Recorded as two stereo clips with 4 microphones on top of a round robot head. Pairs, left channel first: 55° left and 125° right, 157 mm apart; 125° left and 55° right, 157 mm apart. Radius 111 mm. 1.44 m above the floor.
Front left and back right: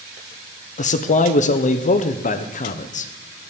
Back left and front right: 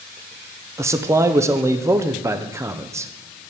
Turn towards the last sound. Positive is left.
turn(degrees=15)